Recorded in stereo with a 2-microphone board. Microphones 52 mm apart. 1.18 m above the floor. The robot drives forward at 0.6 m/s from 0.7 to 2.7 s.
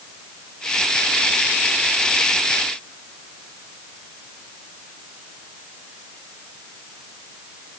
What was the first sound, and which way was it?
Only background noise.